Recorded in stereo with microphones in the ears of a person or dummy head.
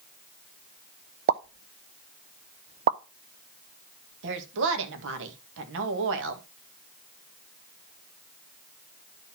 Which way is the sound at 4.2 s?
70° right (ahead or behind).